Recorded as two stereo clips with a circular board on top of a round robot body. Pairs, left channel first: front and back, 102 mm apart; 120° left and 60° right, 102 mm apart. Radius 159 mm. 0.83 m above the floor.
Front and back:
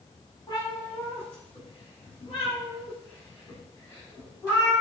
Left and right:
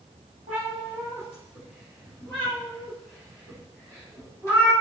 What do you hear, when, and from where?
0.5 s a cat meowing: 50° right, 0.9 m; by 4.7 s 55° left, 3 m